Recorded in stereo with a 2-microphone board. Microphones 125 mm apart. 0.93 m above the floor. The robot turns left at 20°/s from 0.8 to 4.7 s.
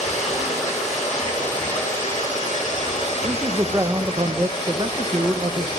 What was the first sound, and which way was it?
Running water, 115° left.